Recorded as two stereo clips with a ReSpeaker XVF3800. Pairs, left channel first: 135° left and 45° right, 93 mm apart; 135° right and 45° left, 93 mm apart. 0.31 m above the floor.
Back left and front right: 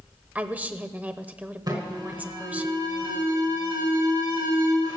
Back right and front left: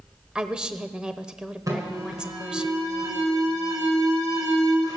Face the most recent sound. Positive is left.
turn(degrees=-5)